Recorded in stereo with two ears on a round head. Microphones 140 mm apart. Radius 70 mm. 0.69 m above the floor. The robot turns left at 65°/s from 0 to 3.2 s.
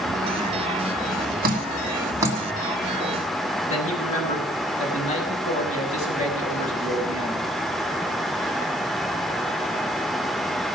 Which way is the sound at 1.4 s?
60° right (ahead or behind).